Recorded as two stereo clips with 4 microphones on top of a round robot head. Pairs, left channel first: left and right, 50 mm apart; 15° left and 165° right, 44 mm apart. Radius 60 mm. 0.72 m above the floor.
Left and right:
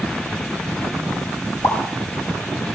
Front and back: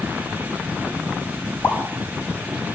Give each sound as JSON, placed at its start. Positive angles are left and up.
{"t": 1.6, "sound": "a pop", "azimuth_deg": 55, "distance_m": 4.0}